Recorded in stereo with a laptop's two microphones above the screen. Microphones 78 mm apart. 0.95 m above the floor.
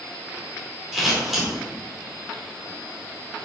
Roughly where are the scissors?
Centre.